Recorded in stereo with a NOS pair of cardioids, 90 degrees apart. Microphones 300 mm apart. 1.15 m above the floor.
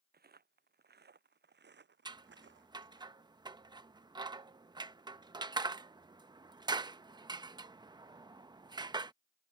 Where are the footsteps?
35° right; by 3.0 s 45° right.